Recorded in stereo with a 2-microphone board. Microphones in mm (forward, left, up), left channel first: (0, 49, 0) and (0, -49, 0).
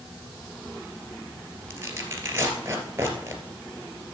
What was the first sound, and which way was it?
Tearing paper, 30° right (ahead or behind).